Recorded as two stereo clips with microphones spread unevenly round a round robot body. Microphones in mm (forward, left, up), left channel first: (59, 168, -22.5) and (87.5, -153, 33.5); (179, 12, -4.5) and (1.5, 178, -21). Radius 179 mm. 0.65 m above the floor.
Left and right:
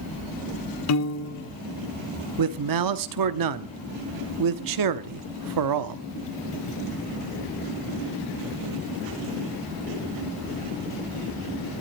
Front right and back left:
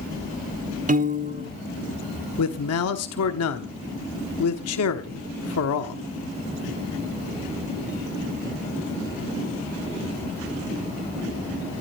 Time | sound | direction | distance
0.9 | a piano | 85° left | 1.8 m
2.4 | a man speaking | 65° right | 1.1 m